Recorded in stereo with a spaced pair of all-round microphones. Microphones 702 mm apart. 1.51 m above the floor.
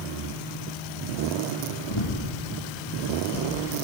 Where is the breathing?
40° left (ahead or behind), 1.2 m.